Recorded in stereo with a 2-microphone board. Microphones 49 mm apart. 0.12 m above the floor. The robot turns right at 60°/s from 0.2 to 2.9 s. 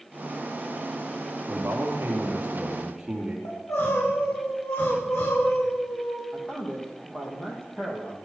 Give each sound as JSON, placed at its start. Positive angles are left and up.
{"t": 1.5, "sound": "a man speaking", "azimuth_deg": -100, "distance_m": 4.0}
{"t": 3.5, "sound": "crying", "side_deg": 65, "distance_m": 8.0}
{"t": 6.3, "sound": "a man speaking", "side_deg": 20, "distance_m": 6.0}